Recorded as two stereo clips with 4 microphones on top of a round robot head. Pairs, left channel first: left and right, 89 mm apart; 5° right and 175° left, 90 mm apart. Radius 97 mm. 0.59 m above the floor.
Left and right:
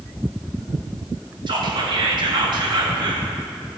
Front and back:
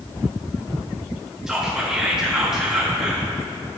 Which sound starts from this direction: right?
Whispering, at 1.5 s.